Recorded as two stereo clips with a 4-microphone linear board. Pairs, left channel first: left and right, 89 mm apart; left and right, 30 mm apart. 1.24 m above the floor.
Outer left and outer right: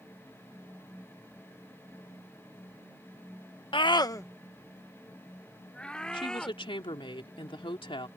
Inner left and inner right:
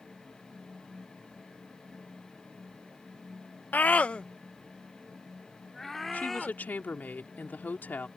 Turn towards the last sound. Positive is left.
turn(degrees=75)  # may be behind; listen again after turning